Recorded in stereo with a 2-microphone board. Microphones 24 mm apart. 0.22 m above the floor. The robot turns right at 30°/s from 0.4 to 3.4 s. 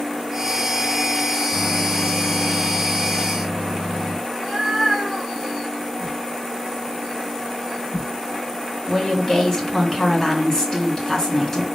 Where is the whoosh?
Centre (ahead or behind), 3 m.